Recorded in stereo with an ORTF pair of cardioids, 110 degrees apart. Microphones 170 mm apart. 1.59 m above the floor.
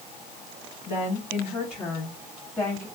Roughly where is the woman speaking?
Ahead left.